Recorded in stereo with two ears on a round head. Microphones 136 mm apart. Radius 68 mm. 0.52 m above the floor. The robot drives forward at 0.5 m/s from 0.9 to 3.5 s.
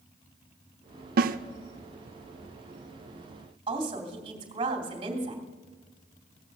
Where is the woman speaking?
35° right (ahead or behind), 3 m.